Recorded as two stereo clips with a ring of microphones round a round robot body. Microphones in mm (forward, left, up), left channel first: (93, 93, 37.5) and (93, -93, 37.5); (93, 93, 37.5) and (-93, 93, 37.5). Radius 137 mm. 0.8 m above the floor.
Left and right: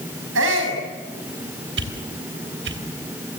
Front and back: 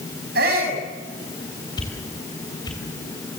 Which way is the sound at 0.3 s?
125° right.